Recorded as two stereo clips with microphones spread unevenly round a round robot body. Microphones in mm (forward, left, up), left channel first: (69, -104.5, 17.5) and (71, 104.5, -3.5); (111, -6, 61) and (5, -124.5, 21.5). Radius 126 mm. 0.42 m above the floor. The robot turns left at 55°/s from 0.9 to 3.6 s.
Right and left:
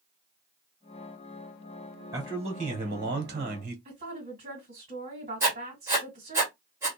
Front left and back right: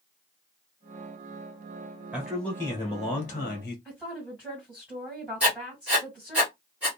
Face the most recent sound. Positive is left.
turn(degrees=160)